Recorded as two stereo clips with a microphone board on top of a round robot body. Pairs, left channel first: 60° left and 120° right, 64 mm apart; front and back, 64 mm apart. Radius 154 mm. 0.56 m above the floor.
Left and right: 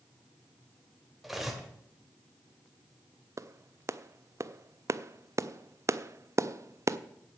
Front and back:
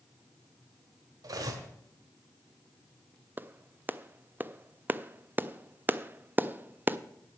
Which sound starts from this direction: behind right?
A clap, at 3.4 s.